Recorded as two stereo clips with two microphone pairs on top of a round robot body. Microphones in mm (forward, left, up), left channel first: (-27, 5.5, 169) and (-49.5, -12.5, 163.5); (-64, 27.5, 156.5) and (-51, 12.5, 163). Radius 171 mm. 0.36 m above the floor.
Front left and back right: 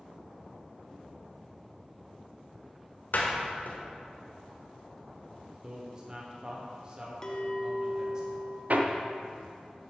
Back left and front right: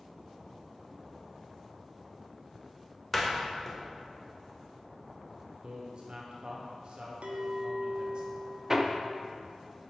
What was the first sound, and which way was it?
A door slam, 60° left.